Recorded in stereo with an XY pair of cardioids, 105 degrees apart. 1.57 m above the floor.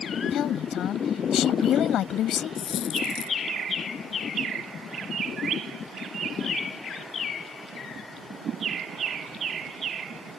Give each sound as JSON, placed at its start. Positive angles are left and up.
{"t": 0.3, "sound": "a woman speaking", "azimuth_deg": 70}
{"t": 2.5, "sound": "a dropped coin", "azimuth_deg": 70}